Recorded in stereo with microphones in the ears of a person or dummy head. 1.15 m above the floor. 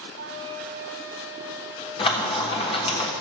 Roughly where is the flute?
Right.